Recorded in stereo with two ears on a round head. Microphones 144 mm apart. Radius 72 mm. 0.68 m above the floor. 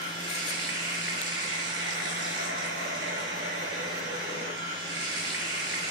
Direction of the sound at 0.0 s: 85° right.